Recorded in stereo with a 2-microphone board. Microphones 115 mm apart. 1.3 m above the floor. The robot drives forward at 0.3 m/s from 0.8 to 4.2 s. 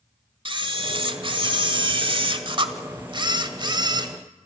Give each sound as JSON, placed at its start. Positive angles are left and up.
{"t": 0.5, "sound": "a camera shutter", "side_deg": -45, "distance_m": 1.4}